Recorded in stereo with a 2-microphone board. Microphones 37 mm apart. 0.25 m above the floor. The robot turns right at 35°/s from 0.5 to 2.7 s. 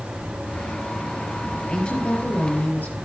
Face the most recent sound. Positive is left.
turn(degrees=60)